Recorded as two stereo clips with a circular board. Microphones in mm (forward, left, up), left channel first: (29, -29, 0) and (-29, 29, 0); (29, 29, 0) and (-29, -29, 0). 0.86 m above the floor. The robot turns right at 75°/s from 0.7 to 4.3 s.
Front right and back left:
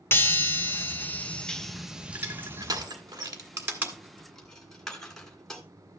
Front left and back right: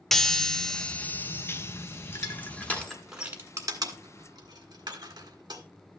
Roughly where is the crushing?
Left.